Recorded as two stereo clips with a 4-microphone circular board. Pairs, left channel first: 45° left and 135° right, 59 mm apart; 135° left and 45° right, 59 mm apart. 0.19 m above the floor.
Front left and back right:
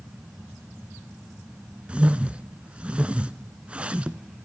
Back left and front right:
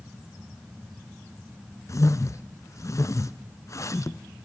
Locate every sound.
1.9 s a whoosh: 155° left, 0.7 m